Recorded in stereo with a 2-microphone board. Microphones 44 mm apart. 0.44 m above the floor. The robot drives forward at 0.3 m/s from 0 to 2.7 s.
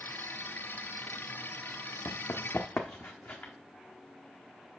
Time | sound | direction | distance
2.0 | running footsteps | 70° left (ahead or behind) | 1.2 m